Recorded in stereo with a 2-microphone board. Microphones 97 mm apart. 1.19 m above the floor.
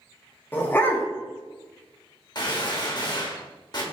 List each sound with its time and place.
0.5 s a dog barking: 20° left (ahead or behind), 0.7 m
2.4 s a gunshot: 45° left (ahead or behind), 1.0 m